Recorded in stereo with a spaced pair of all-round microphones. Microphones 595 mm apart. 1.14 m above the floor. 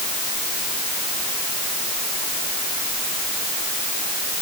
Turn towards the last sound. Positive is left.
No sound to turn to.